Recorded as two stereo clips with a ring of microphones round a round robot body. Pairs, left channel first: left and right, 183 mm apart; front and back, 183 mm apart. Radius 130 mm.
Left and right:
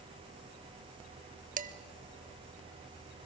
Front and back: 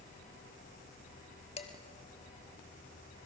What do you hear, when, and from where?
1.6 s dishes clattering: 60° right, 0.9 m